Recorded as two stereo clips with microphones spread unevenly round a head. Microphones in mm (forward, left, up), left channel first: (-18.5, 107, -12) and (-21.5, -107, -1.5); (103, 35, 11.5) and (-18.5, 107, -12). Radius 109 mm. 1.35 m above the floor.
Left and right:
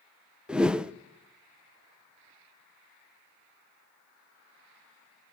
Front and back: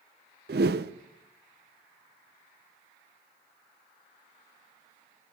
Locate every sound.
0.5 s a whoosh: 175° right, 0.5 m